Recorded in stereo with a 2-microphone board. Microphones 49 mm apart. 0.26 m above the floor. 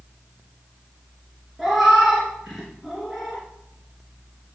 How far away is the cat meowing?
About 2 m.